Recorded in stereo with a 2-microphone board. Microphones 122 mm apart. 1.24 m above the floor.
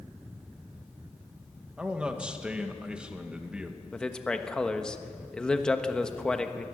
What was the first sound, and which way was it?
A man speaking, 10° right (ahead or behind).